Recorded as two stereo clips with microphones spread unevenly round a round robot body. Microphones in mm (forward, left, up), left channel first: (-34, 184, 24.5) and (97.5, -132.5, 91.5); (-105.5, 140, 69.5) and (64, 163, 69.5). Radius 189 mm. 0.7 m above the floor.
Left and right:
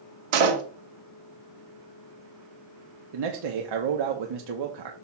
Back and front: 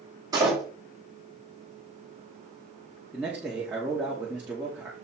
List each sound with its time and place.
0.3 s a door slam: 65° right, 1.4 m
3.1 s a man speaking: 75° right, 1.0 m